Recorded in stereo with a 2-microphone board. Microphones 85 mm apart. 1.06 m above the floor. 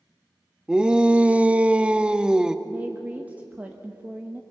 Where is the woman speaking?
20° right (ahead or behind), 1.2 m.